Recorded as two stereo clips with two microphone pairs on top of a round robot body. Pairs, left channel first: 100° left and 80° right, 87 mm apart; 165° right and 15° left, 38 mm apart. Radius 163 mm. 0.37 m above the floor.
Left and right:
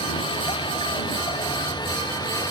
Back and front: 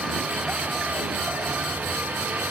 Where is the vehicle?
75° left; by 2.5 s 55° left.